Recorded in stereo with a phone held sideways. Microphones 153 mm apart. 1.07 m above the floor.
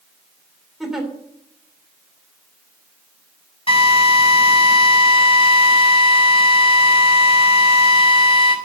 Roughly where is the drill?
Left.